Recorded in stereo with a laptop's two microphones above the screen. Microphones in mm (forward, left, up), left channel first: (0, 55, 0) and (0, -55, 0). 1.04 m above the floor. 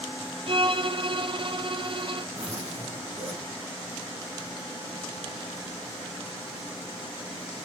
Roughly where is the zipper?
Right.